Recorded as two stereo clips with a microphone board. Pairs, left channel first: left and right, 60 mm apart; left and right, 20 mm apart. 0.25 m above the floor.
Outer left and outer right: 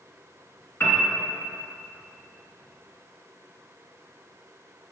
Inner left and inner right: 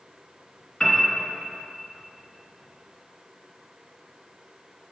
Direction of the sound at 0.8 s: 50° left (ahead or behind).